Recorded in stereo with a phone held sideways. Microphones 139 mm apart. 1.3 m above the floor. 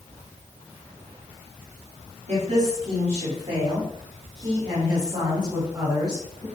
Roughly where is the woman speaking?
Right.